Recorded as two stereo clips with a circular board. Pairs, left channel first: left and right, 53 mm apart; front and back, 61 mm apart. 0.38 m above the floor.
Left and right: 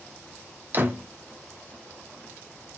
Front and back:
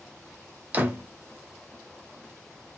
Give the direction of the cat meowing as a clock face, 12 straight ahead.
No cat meowing in this recording.